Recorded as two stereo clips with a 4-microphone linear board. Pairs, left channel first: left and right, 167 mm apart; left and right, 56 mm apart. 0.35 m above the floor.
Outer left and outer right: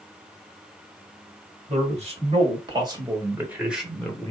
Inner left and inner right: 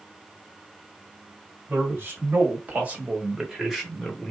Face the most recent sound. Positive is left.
turn(degrees=10)  # may be behind; listen again after turning